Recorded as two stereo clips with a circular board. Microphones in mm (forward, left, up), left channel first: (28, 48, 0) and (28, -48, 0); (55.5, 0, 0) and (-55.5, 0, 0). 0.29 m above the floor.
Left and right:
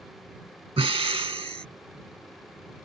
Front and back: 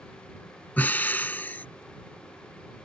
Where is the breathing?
75° right.